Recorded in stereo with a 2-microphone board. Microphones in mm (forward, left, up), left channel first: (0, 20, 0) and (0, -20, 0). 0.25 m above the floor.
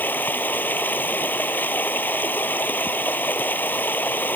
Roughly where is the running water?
Left.